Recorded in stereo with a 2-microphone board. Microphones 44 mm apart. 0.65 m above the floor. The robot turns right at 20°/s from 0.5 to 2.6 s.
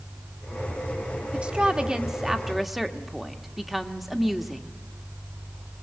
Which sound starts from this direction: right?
A woman speaking, at 1.3 s.